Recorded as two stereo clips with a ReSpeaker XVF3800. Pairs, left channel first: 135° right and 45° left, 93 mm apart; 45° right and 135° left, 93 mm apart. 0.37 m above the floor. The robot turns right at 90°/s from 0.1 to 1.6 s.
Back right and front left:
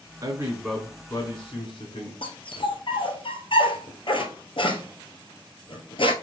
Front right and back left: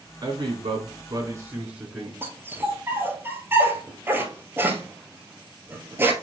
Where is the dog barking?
160° right, 1.8 m.